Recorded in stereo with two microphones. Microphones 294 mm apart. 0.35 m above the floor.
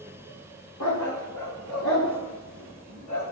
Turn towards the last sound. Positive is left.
turn(degrees=85)